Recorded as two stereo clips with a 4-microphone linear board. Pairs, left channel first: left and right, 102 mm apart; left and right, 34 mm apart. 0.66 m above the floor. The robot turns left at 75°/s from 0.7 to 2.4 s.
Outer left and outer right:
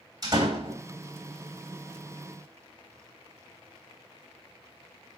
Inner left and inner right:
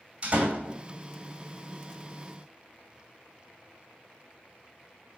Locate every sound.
0.2 s a door slam: 40° right (ahead or behind), 2.5 m; by 0.8 s 45° right (ahead or behind), 2.5 m